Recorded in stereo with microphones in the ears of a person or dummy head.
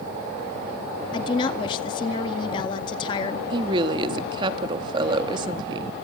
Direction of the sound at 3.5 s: 30° right (ahead or behind).